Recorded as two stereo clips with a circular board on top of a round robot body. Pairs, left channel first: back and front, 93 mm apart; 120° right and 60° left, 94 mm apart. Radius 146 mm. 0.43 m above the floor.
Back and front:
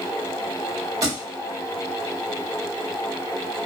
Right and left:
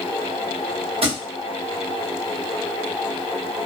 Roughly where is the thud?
Ahead left.